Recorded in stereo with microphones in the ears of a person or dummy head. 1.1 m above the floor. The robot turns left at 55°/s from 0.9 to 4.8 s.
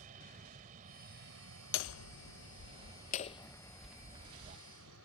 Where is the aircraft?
45° right; by 5.0 s 100° left.